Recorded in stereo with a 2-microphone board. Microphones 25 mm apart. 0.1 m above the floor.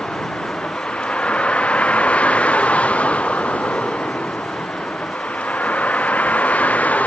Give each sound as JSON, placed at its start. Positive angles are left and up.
{"t": 0.0, "sound": "a vehicle", "side_deg": 45}